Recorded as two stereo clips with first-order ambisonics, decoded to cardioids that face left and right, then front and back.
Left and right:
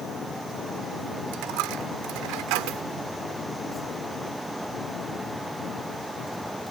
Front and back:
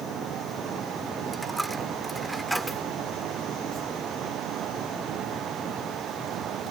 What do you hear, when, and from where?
1.3 s a dropped coin: 95° right